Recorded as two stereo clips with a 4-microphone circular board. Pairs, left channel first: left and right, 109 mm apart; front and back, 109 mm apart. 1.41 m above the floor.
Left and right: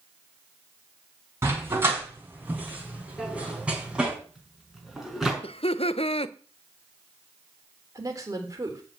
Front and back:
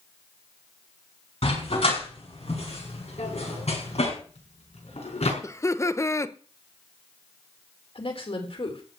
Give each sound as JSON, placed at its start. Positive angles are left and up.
{"t": 1.4, "sound": "a dog barking", "azimuth_deg": -20, "distance_m": 6.5}
{"t": 3.2, "sound": "a drawer", "azimuth_deg": -5, "distance_m": 5.0}
{"t": 5.4, "sound": "laughter", "azimuth_deg": 60, "distance_m": 0.9}
{"t": 8.0, "sound": "a woman speaking", "azimuth_deg": -30, "distance_m": 3.5}